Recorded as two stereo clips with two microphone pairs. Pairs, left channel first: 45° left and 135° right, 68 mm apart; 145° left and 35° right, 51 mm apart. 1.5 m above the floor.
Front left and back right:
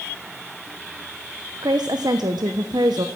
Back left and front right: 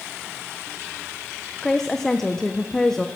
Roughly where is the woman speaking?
Behind right.